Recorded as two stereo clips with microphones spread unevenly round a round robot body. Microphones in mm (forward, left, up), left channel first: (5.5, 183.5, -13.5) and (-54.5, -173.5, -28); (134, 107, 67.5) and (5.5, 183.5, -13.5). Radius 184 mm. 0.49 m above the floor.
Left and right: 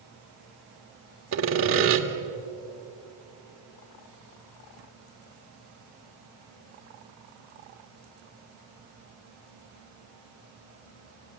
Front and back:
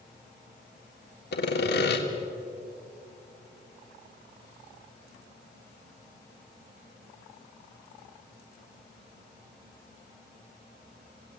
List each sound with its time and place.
1.3 s sawing: 65° right, 1.7 m